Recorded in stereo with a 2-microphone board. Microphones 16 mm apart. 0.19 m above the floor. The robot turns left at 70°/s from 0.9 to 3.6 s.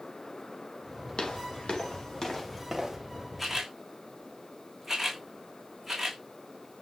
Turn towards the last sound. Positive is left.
turn(degrees=-25)  # may be behind; listen again after turning